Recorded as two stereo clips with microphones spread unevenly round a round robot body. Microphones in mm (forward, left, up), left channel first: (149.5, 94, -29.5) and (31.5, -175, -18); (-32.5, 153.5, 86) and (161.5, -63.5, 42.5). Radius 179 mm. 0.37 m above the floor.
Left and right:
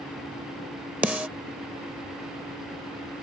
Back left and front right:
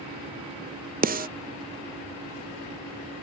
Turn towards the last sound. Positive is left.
turn(degrees=-30)